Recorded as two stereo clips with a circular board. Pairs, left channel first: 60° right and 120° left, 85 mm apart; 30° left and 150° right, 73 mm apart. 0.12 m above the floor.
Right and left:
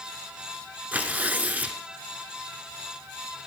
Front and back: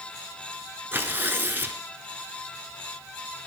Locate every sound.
0.9 s tearing paper: 175° left, 0.6 m